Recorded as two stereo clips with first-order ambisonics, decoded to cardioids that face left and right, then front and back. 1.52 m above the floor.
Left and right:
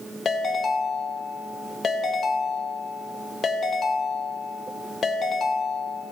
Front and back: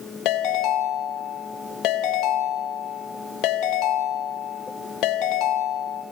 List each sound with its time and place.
0.2 s a ringtone: 25° left, 1.4 m